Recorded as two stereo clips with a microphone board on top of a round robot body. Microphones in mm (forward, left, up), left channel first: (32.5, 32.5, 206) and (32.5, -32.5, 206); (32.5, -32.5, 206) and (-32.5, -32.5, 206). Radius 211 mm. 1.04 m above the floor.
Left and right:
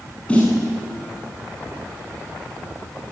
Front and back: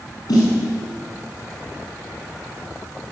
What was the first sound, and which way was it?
A snare drum, 20° left.